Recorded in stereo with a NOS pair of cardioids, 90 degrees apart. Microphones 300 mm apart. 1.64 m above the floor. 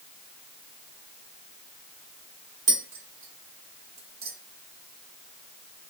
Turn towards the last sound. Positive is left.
turn(degrees=-60)